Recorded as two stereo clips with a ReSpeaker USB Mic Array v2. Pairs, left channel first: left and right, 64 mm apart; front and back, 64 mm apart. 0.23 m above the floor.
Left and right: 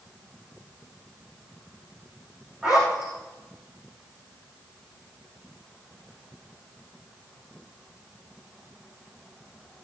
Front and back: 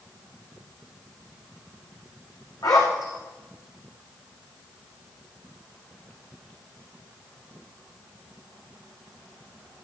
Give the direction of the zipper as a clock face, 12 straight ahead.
12 o'clock.